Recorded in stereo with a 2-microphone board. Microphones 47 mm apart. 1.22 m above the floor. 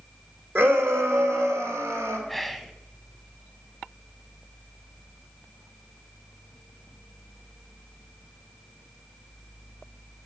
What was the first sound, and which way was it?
A shout, 50° right (ahead or behind).